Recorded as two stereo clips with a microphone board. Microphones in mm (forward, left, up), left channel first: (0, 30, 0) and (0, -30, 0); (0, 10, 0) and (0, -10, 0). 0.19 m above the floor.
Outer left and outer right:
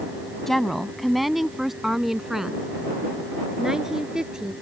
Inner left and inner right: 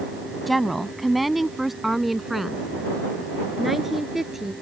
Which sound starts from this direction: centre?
A woman speaking, at 0.5 s.